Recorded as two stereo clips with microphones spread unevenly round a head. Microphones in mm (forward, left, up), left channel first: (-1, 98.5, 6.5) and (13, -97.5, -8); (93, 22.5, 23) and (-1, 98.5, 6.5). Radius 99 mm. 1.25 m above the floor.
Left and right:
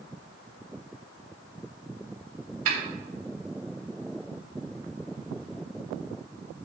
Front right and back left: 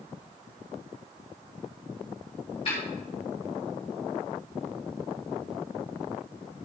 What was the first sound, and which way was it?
A snare drum, 105° right.